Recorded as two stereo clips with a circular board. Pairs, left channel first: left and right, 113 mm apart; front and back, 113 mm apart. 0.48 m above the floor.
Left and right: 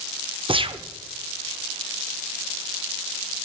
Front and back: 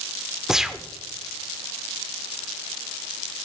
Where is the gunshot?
95° right, 0.6 m.